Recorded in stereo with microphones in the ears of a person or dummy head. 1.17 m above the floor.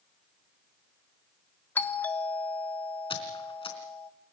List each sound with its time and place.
1.8 s a doorbell: 15° left (ahead or behind), 1.5 m
3.1 s a squeak: 20° left (ahead or behind), 3.5 m